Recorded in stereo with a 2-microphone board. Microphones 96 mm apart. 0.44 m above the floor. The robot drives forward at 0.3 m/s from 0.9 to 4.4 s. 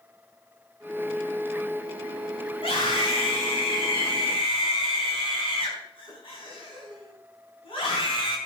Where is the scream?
70° left (ahead or behind), 5 m; by 8.4 s 65° left (ahead or behind), 5 m.